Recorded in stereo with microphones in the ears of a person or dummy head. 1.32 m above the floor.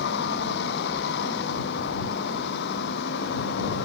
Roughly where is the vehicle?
Left.